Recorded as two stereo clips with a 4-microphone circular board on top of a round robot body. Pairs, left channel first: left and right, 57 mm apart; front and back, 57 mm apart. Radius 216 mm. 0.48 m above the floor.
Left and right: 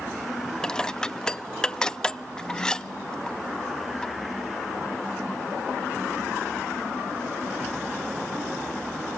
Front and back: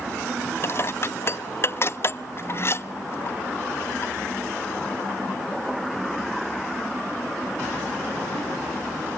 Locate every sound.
0.6 s dishes clattering: 20° left, 0.8 m